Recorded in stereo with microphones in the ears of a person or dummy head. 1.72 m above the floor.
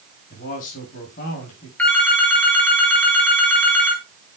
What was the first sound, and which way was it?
A man speaking, 55° left (ahead or behind).